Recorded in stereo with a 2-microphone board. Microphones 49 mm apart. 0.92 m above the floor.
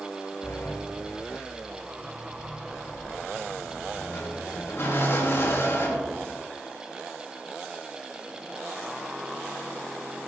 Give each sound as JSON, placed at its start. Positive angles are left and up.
{"t": 0.4, "sound": "a sliding door", "side_deg": 60, "distance_m": 3.0}